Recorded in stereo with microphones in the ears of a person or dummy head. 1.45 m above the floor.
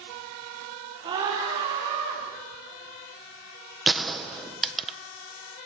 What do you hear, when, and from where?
1.0 s a scream: 35° right (ahead or behind), 5 m; by 2.2 s 45° right (ahead or behind), 5 m
3.9 s a gunshot: centre (ahead or behind), 1.1 m